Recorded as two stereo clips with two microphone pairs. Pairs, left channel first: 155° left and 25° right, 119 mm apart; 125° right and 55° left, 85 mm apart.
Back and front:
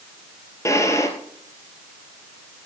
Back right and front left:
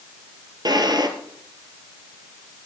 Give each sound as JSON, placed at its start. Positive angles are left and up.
{"t": 0.7, "sound": "a drawer", "azimuth_deg": 90, "distance_m": 2.0}